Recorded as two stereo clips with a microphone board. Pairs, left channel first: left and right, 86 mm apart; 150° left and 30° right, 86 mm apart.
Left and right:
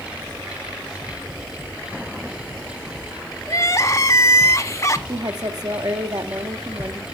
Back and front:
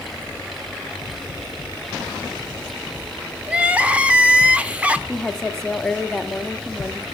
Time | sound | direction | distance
3.5 | crying | 45° left | 1.1 m
5.1 | a woman speaking | 125° right | 1.8 m